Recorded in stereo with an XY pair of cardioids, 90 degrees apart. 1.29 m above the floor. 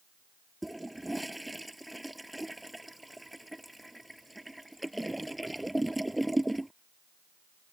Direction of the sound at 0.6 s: 5° right.